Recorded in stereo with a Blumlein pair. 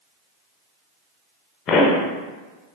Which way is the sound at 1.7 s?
30° left.